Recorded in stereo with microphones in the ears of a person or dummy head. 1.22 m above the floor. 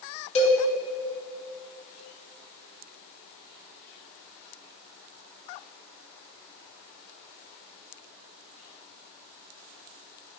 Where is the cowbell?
35° left (ahead or behind), 2.5 m.